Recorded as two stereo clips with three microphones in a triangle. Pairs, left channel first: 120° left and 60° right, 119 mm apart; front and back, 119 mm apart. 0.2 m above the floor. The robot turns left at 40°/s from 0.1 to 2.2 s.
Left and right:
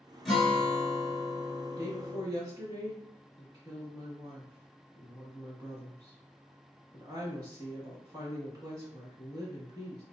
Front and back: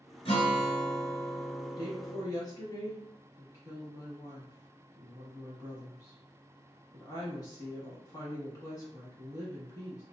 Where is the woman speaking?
5° right, 1.4 m; by 10.0 s 25° right, 1.4 m.